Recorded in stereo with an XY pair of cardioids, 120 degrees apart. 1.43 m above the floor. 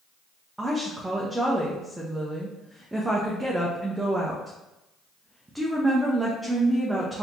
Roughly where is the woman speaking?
Ahead.